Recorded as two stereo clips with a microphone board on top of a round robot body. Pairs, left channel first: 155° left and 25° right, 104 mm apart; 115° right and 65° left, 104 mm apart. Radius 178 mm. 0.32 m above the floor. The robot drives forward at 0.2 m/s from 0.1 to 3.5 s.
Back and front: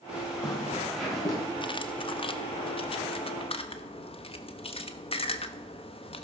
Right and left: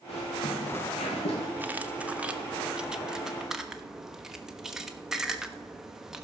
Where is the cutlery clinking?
135° left, 0.9 m; by 6.2 s 150° left, 1.1 m.